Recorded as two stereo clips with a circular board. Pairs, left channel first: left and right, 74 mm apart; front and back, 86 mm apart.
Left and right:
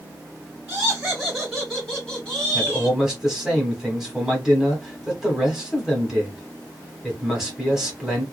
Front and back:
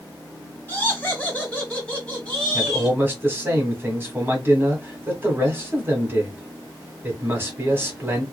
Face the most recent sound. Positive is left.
turn(degrees=-170)